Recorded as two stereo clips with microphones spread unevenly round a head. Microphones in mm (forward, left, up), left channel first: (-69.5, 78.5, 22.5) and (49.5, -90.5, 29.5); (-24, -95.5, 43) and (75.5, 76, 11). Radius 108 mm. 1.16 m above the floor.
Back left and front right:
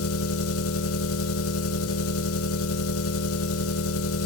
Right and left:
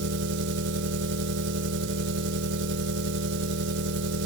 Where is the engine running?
100° left, 1.7 m.